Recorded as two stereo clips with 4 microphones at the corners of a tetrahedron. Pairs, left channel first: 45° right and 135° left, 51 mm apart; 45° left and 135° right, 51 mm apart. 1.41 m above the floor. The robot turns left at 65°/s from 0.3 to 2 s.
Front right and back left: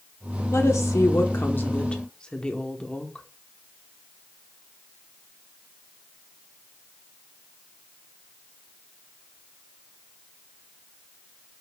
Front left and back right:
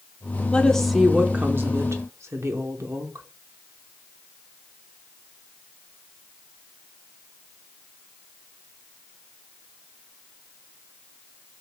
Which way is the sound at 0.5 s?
20° right.